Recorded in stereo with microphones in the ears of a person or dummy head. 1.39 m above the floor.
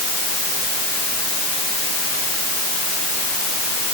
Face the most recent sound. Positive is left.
No sound to turn to.